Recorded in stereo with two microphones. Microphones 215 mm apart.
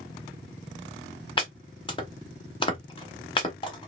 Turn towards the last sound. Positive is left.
turn(degrees=25)  # may be behind; listen again after turning